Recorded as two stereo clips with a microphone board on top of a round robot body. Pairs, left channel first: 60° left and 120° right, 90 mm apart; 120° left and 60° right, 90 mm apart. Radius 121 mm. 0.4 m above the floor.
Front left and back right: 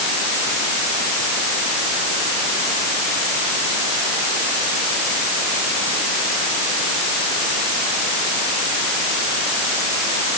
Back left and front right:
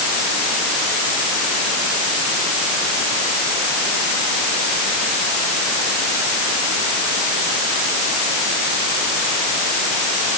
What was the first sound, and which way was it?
Only background noise.